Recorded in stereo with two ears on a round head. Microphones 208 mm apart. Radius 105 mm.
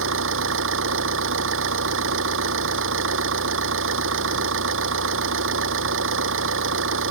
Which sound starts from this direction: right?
An engine running, at 0.0 s.